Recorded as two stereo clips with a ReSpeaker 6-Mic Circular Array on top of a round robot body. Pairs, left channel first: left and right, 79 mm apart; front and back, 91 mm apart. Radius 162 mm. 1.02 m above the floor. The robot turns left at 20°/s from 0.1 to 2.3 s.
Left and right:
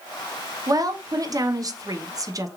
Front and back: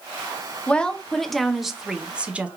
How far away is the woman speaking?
About 0.7 m.